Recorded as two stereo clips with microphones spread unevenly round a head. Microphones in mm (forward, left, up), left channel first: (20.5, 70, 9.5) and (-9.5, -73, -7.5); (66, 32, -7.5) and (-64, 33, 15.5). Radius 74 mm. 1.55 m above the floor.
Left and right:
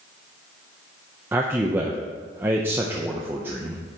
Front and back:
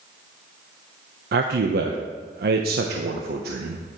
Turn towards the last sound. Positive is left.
turn(degrees=-175)